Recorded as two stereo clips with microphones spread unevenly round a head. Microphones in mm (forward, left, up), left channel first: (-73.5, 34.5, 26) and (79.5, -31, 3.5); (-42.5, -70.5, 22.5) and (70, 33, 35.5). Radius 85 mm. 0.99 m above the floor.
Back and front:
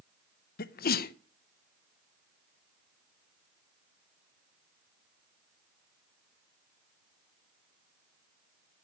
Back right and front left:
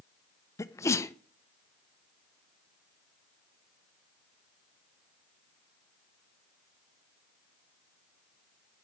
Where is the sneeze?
165° left, 0.6 m.